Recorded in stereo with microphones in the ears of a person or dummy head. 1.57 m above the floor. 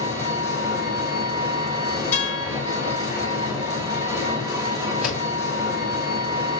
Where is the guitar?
10° left (ahead or behind), 4.5 m.